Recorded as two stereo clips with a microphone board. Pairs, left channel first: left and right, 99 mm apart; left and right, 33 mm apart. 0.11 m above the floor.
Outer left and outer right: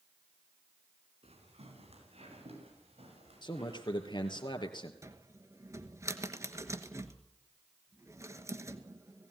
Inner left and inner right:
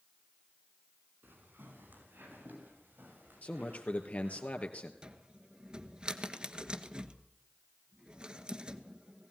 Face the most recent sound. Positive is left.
turn(degrees=-30)  # may be behind; listen again after turning